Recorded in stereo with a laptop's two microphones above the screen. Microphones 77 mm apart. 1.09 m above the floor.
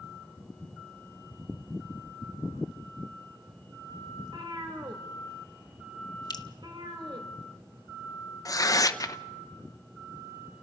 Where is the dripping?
60° left (ahead or behind), 1.0 m.